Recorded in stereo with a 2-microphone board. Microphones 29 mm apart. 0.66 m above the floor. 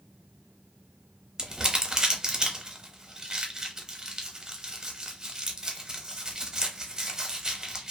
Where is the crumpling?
25° right (ahead or behind), 0.6 m.